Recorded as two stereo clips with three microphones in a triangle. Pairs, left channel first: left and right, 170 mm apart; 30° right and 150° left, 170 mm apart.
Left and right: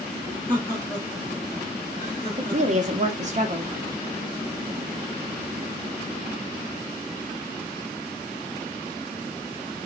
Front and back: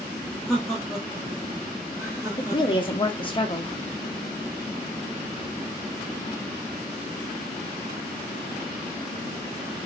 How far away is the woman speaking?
About 0.6 m.